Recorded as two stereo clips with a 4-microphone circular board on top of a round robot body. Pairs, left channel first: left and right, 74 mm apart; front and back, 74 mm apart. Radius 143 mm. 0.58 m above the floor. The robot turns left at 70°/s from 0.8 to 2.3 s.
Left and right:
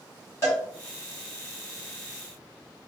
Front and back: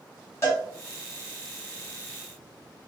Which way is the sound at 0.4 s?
45° left.